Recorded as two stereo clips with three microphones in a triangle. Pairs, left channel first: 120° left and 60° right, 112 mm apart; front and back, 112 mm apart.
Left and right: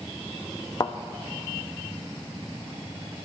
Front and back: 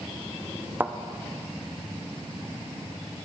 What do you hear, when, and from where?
0.8 s a thud: 120° left, 0.6 m